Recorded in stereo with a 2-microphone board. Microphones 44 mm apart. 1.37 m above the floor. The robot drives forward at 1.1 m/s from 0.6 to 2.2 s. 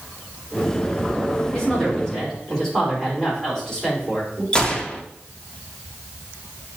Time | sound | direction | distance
1.5 | a woman speaking | 15° left (ahead or behind) | 2.5 m
4.5 | a gunshot | 20° left (ahead or behind) | 0.5 m